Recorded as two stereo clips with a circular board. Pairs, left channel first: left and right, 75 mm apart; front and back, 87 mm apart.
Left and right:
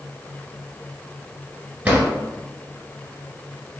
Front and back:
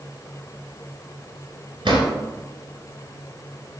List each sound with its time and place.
1.9 s a drawer: 160° right, 1.3 m